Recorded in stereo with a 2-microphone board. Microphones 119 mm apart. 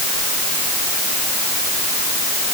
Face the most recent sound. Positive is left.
No sound to turn to.